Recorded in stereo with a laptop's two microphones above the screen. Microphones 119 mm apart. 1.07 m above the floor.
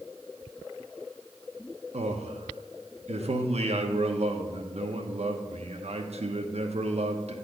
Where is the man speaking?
60° right (ahead or behind), 1.0 m.